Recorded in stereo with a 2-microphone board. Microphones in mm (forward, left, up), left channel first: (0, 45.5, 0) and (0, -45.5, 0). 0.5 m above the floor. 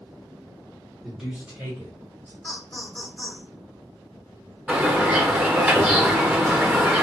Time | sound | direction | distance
1.0 | a man speaking | centre (ahead or behind) | 1.3 m
2.4 | laughter | 10° left (ahead or behind) | 1.2 m
4.7 | a bird | 15° right (ahead or behind) | 0.7 m